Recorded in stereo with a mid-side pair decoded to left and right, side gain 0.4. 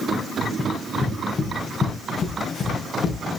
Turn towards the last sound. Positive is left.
turn(degrees=65)